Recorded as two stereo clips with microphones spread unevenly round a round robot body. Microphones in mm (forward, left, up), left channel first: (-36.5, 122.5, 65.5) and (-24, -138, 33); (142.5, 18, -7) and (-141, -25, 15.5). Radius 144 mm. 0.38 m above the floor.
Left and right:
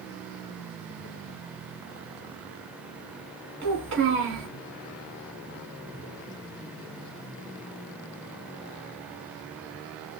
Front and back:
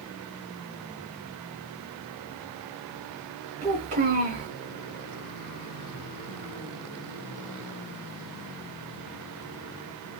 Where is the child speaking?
105° right, 2.5 m.